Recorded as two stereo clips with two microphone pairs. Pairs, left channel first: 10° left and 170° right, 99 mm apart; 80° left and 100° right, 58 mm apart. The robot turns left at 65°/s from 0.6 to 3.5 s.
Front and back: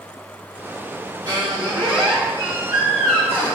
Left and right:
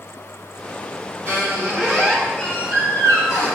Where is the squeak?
140° right, 1.5 m; by 3.6 s 75° left, 1.5 m.